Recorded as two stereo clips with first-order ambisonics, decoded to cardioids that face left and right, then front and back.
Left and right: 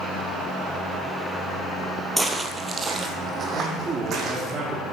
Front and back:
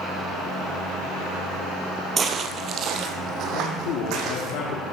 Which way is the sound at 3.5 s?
20° right.